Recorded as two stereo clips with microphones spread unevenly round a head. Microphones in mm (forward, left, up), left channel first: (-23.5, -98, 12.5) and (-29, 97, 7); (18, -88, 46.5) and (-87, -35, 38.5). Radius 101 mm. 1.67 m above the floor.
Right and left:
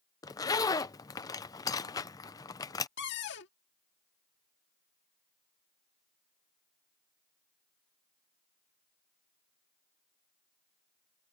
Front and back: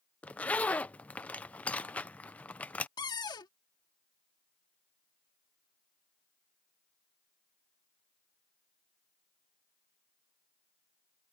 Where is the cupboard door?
70° right.